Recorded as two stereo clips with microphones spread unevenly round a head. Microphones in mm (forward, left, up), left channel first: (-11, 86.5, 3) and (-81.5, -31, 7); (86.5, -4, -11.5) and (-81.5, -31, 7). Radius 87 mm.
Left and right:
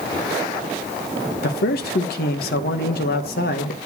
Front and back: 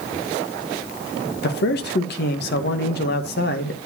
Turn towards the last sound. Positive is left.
turn(degrees=40)